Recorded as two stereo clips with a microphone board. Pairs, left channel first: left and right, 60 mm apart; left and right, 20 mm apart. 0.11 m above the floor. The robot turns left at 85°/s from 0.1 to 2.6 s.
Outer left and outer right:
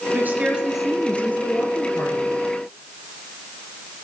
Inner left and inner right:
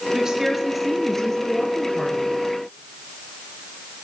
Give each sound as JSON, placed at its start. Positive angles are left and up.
{"t": 0.1, "sound": "a woman speaking", "azimuth_deg": -120, "distance_m": 2.0}